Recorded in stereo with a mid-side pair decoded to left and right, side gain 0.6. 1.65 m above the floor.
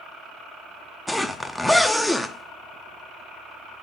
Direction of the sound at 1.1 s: Straight ahead.